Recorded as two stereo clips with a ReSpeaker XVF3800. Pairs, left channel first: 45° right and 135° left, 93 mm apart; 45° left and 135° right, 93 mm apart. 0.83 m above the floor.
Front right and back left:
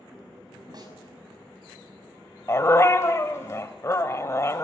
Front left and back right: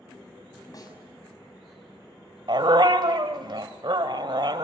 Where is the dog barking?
100° right, 1.5 m.